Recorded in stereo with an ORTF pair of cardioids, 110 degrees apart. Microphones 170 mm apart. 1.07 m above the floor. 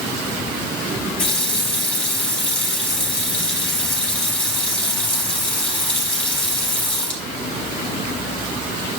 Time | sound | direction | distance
1.2 | a running tap | 10° left | 3.5 m